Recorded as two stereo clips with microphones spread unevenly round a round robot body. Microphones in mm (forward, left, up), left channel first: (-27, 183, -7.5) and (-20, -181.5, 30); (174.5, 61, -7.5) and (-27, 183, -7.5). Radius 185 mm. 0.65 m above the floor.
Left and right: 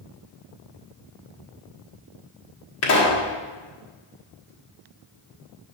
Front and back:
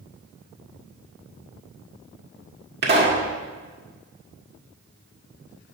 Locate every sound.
2.8 s a pop: 120° left, 1.6 m